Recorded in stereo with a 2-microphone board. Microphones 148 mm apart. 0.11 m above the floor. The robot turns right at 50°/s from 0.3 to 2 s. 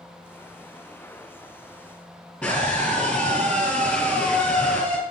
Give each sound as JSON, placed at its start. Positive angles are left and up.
{"t": 2.4, "sound": "a scream", "side_deg": 10, "distance_m": 3.0}